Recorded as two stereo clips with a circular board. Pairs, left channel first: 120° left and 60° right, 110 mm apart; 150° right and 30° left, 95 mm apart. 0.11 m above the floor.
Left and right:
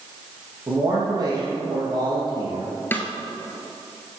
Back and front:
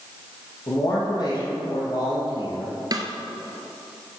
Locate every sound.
0.7 s a man speaking: 115° right, 3.5 m
2.9 s a snare drum: 55° left, 1.2 m